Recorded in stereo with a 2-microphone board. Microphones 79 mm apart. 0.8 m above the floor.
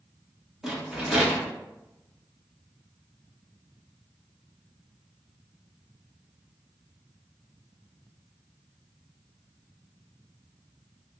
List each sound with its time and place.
0.6 s a rattle: 5° right (ahead or behind), 1.1 m